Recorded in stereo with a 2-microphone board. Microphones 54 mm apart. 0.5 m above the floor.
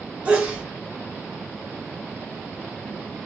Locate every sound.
0.2 s a sneeze: 20° right (ahead or behind), 0.9 m